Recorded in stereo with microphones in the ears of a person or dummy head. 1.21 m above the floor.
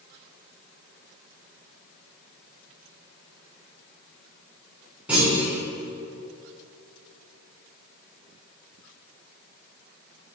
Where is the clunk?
5° right (ahead or behind), 4.5 m.